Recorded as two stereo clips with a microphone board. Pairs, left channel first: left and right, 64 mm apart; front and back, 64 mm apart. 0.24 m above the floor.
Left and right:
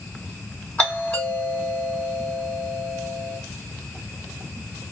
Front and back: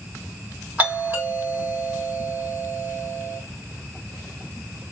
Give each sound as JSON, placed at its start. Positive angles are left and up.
{"t": 0.8, "sound": "a doorbell", "azimuth_deg": 140, "distance_m": 2.0}